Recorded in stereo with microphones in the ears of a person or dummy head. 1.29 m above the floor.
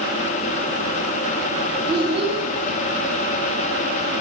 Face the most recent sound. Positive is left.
turn(degrees=-30)  # may be behind; listen again after turning